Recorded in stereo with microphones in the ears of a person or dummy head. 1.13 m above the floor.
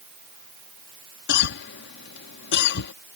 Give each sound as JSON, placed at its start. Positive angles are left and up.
{"t": 1.3, "sound": "a cough", "side_deg": 65}